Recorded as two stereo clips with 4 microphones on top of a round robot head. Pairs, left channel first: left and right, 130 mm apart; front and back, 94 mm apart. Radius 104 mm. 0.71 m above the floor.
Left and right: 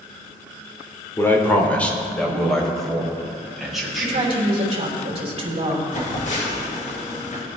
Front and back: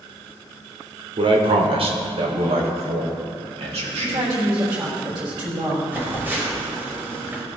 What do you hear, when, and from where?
1.2 s a man speaking: 160° left, 2 m; by 4.3 s 175° right, 5.5 m
3.9 s a woman speaking: 130° right, 4 m
5.9 s a phone buzzing: 110° left, 4 m